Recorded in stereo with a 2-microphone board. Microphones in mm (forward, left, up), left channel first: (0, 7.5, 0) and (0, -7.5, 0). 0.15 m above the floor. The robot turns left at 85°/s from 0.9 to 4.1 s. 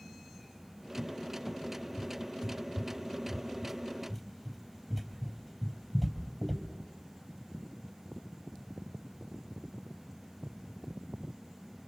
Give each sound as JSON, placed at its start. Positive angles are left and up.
{"t": 1.0, "sound": "a cupboard door", "side_deg": 65, "distance_m": 3.5}